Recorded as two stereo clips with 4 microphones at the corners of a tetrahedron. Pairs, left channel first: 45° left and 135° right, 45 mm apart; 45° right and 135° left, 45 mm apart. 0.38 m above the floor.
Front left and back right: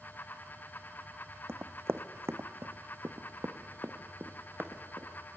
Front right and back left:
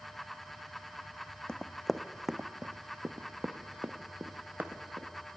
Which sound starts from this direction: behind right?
Running footsteps, at 1.5 s.